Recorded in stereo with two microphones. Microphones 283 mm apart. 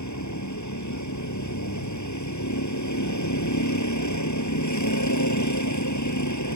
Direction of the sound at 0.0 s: 85° left.